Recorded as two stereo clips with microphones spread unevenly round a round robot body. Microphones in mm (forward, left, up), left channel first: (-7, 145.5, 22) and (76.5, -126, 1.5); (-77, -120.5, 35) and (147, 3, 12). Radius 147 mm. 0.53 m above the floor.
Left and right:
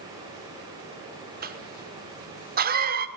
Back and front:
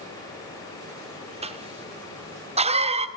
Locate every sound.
1.4 s a cough: 25° right, 1.5 m